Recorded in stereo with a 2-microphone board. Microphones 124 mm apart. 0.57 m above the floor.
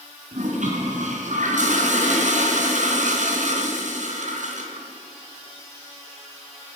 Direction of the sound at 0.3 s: 80° right.